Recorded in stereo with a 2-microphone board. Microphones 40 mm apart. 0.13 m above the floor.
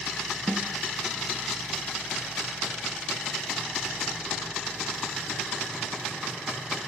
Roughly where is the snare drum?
Right.